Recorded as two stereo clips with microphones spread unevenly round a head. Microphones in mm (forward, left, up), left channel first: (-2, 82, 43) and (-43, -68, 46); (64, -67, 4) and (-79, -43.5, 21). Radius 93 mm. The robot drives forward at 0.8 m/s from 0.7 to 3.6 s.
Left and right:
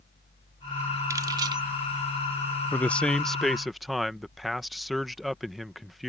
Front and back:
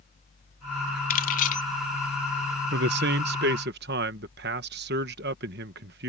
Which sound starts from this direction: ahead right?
Keys jangling, at 1.1 s.